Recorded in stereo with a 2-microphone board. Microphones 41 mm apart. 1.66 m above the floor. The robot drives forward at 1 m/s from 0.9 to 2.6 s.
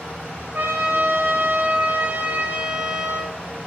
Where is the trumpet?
55° right (ahead or behind), 1.5 m; by 3.4 s 40° right (ahead or behind), 2.0 m.